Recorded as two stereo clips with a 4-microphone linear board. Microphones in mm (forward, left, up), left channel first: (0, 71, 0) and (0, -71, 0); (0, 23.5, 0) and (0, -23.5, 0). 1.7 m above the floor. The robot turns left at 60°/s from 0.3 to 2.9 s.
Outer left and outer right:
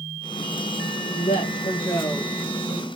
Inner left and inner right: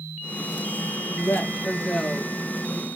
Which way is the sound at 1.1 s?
85° left.